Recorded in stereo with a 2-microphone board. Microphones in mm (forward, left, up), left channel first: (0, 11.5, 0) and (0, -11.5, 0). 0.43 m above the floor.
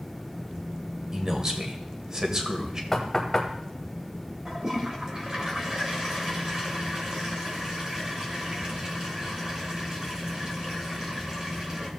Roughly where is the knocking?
Centre.